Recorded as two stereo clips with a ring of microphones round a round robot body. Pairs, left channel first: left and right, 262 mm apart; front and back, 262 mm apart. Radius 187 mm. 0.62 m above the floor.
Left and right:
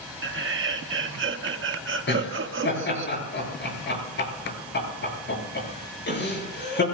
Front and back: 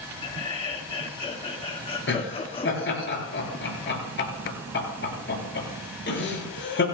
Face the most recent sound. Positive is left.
turn(degrees=45)